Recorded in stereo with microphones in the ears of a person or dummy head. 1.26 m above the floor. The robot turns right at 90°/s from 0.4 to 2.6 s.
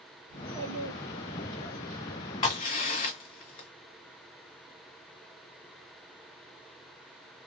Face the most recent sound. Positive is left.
turn(degrees=40)  # may be behind; listen again after turning